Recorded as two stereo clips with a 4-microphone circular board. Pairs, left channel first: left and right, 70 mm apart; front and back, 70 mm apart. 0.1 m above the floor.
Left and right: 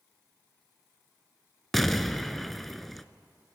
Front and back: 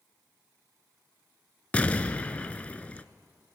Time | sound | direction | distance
1.7 | an explosion | 5° left | 0.6 m